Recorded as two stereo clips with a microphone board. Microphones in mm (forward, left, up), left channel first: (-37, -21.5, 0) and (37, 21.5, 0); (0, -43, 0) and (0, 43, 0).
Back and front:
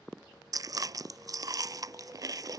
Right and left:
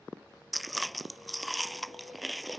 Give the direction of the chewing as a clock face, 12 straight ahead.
12 o'clock.